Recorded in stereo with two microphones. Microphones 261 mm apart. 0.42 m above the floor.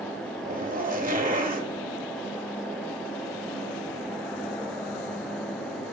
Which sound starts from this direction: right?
A zipper, at 0.4 s.